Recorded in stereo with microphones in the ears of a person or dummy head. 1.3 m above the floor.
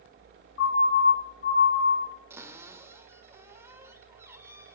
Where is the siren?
55° left (ahead or behind), 4 m; by 2.0 s 50° left (ahead or behind), 6 m.